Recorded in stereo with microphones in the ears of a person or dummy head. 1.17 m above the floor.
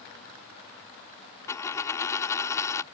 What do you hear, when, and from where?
1.5 s a dropped coin: 20° left (ahead or behind)